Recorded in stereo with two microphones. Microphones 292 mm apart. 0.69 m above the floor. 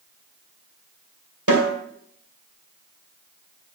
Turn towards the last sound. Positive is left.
turn(degrees=-75)  # may be behind; listen again after turning